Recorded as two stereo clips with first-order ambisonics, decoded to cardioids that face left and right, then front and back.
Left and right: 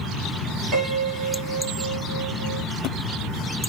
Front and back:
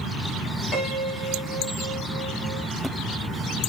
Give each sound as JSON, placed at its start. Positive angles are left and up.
{"t": 0.7, "sound": "a piano", "azimuth_deg": -50, "distance_m": 1.8}